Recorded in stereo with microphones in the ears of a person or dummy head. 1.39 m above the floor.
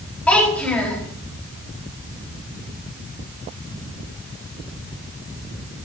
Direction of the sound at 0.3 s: 5° left (ahead or behind).